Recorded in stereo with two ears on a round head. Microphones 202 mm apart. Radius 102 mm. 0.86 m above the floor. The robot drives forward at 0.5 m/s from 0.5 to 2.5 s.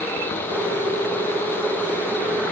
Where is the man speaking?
I don't hear a man speaking.